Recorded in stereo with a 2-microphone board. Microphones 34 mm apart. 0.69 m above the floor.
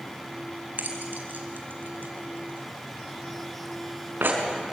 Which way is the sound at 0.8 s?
65° right (ahead or behind).